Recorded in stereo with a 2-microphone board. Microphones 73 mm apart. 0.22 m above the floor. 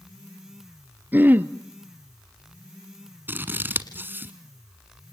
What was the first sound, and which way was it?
Throat clearing, 25° right (ahead or behind).